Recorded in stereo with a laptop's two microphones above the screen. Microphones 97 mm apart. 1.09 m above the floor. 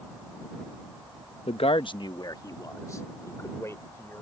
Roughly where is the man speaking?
Left.